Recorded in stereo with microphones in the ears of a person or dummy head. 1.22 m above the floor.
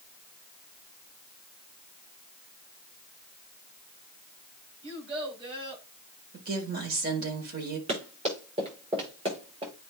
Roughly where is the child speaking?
Right.